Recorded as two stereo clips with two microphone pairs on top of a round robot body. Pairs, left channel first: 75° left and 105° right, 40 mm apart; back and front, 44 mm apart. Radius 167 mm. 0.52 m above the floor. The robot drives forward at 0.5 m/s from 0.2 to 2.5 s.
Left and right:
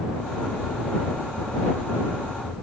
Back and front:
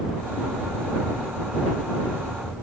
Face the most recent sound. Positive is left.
No sound to turn to.